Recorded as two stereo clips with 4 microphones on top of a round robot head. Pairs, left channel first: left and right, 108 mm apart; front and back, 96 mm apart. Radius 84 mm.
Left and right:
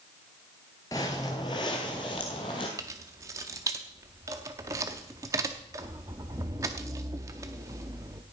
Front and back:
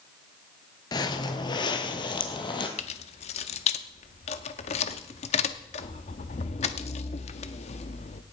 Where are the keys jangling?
20° right, 0.7 m.